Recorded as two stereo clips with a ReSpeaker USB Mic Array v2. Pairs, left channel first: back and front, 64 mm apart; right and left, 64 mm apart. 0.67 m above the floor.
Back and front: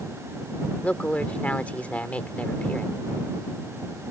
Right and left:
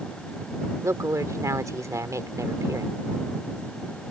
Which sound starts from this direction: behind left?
A woman speaking, at 0.8 s.